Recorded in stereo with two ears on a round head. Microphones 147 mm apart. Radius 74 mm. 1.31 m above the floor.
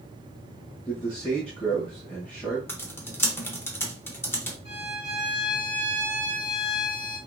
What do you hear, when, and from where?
0.8 s a man speaking: 5° left (ahead or behind), 1.3 m
2.7 s typing on a keyboard: 15° left (ahead or behind), 1.1 m
4.7 s a violin: 35° left (ahead or behind), 2.5 m